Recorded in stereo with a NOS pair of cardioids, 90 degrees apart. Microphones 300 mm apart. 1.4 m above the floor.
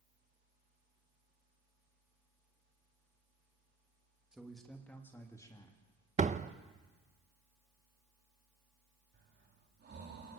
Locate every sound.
4.3 s a man speaking: straight ahead, 3 m; by 5.8 s 15° left, 3.5 m
6.2 s a door slam: 25° right, 0.9 m
9.1 s breathing: 35° right, 3.5 m